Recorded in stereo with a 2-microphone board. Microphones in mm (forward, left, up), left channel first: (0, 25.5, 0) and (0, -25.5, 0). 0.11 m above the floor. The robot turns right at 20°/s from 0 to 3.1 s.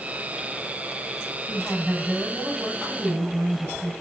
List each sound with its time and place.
1.5 s a woman speaking: 165° left, 4.5 m; by 3.9 s 165° right, 4.5 m